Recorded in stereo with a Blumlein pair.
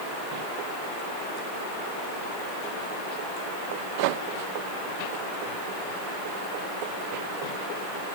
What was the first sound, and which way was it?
Only background noise.